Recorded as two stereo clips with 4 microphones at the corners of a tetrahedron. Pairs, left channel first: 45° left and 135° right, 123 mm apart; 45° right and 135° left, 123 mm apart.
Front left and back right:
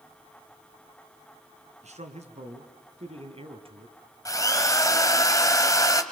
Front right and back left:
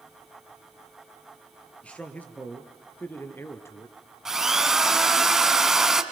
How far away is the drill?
About 1.5 m.